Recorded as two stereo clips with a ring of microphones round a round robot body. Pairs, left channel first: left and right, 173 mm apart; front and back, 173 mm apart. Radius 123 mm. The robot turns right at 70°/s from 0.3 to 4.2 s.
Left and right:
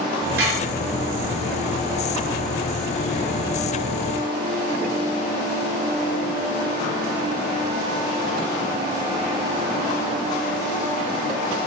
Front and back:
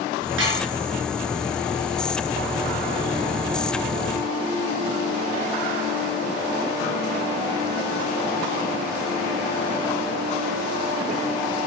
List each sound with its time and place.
0.4 s dishes clattering: 145° right, 5 m; by 0.7 s 125° right, 5 m